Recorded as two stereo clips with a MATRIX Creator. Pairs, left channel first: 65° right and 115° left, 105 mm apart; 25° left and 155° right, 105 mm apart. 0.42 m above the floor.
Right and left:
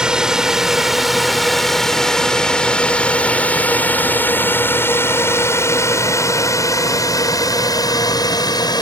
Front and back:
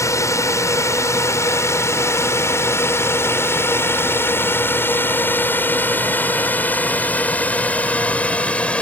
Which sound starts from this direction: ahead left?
A drone, at 0.0 s.